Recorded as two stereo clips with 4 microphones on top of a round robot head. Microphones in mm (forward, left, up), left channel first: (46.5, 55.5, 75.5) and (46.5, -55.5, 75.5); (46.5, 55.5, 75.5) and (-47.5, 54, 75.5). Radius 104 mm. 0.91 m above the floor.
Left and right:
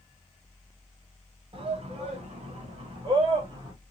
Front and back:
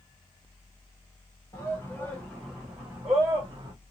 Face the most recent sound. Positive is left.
turn(degrees=-130)